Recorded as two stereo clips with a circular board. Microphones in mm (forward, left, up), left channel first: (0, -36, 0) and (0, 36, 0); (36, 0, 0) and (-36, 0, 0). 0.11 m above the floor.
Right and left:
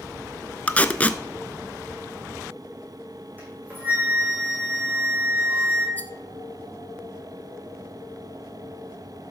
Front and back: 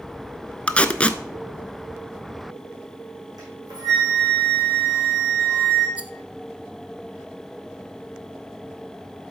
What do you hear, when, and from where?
0.7 s tape being pulled: 50° right, 0.6 m
3.4 s a flute: 155° left, 4.5 m
6.0 s a rattle: 125° right, 0.6 m